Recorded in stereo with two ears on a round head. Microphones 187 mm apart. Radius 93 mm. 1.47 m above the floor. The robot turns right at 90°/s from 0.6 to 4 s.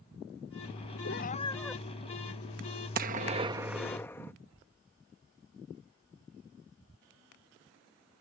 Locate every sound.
1.1 s a cat meowing: 120° left; by 1.8 s 170° right
3.0 s a gunshot: 80° right; by 4.3 s 15° left